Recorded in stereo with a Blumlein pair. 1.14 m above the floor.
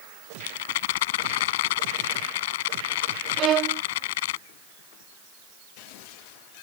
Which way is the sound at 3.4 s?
30° right.